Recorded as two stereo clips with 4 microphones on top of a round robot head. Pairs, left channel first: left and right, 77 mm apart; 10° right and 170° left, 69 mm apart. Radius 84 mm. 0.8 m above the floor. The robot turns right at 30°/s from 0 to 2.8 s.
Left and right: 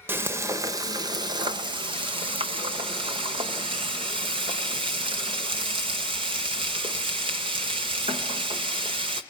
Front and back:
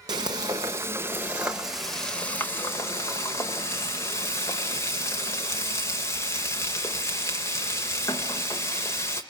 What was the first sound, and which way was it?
Frying, 150° right.